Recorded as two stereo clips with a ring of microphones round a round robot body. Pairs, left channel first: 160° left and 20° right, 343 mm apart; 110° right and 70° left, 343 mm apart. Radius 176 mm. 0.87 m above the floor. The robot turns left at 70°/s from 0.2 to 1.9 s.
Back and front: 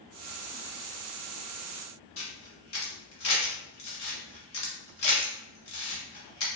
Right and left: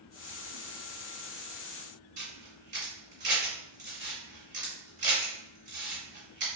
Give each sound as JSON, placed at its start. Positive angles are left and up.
{"t": 2.2, "sound": "a camera shutter", "azimuth_deg": 135, "distance_m": 1.8}